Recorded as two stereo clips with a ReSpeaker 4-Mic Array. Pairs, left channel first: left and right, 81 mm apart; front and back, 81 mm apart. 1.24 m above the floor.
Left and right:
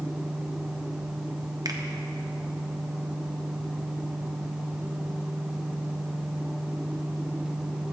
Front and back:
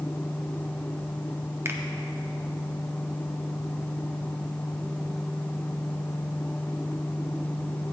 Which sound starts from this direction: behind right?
A finger snap, at 1.6 s.